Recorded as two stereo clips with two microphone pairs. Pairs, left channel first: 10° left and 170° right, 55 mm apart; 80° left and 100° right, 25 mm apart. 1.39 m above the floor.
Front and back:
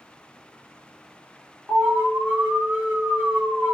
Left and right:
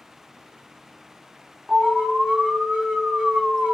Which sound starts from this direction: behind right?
An alarm, at 1.7 s.